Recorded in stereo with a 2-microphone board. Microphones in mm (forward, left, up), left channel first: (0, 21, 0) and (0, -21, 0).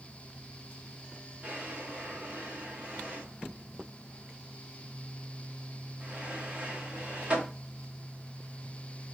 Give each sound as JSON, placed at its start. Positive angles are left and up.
{"t": 1.4, "sound": "a drawer", "side_deg": -30, "distance_m": 1.8}